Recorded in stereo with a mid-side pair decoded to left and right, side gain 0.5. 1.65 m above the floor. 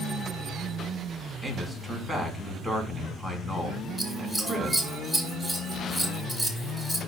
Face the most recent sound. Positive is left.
turn(degrees=0)